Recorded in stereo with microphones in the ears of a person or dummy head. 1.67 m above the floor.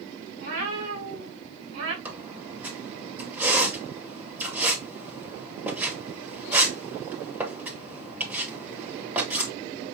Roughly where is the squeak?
Centre.